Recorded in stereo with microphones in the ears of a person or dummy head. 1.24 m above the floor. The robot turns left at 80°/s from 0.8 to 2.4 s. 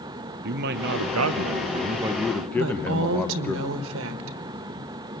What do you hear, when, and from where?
0.4 s a man speaking: 60° right, 0.7 m; by 3.6 s 175° left, 0.7 m
2.6 s a woman speaking: 75° right (ahead or behind), 1.3 m